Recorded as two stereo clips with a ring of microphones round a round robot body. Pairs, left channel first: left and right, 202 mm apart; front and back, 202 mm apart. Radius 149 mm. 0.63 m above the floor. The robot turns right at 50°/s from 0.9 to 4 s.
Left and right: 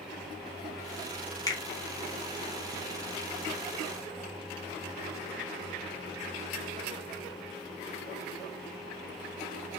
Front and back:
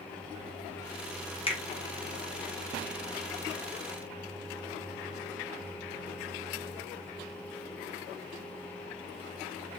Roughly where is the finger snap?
Ahead left.